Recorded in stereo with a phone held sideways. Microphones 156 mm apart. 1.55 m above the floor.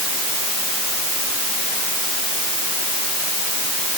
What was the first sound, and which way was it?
Only background noise.